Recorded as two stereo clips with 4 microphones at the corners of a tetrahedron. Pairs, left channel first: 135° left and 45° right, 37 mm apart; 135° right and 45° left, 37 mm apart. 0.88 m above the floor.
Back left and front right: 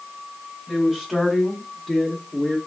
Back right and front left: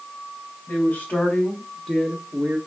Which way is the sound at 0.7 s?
130° right.